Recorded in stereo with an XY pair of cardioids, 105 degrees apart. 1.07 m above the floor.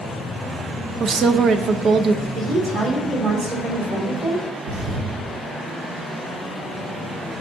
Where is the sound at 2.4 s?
50° right, 3.5 m.